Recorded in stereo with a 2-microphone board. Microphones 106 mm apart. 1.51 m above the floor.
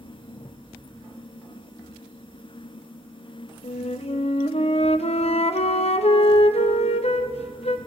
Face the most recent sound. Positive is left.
turn(degrees=75)  # may be behind; listen again after turning